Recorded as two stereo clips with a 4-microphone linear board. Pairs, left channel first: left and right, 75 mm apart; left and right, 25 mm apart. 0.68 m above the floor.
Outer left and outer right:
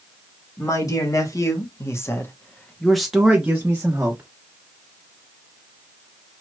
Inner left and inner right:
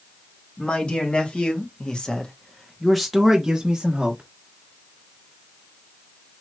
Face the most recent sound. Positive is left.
turn(degrees=-35)  # may be behind; listen again after turning